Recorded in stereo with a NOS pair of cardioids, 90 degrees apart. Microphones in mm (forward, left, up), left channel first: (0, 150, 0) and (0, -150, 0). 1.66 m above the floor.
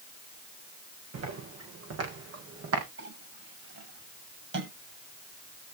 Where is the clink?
45° right, 7 m.